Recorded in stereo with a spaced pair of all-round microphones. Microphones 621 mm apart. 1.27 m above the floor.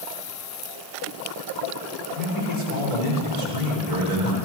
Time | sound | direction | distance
2.1 | a man speaking | 85° left | 4.5 m